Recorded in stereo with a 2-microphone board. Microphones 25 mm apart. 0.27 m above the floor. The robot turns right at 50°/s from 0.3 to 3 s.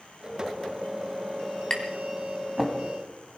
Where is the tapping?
30° left (ahead or behind), 2 m; by 2.8 s 10° right (ahead or behind), 2 m.